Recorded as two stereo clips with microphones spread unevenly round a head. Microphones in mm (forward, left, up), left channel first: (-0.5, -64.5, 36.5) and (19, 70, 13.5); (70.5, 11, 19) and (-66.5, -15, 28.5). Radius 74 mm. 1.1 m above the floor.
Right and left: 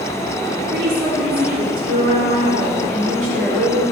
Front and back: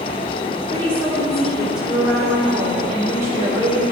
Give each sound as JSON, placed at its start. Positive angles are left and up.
{"t": 0.7, "sound": "a woman speaking", "azimuth_deg": 90, "distance_m": 3.0}